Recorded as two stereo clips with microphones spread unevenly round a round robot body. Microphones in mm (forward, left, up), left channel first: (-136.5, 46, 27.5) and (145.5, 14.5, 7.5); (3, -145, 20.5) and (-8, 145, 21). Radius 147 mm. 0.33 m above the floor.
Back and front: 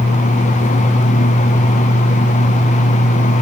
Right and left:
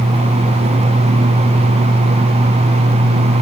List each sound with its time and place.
Only background noise.